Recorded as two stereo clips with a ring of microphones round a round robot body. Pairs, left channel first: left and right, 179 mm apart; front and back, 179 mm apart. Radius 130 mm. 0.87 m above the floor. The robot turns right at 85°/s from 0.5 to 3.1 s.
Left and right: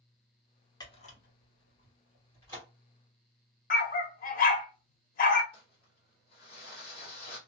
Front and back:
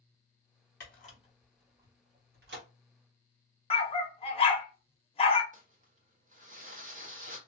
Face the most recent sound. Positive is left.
turn(degrees=145)